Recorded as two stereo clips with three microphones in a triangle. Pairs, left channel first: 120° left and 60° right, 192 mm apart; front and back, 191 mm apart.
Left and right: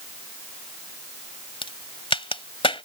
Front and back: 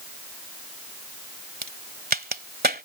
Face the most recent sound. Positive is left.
turn(degrees=175)